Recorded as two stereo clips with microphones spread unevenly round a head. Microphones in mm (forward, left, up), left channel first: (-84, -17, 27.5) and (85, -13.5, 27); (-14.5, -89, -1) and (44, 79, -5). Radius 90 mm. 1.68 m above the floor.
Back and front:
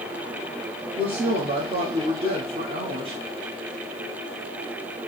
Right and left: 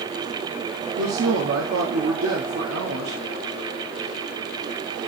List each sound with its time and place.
1.0 s a woman speaking: 60° left, 1.0 m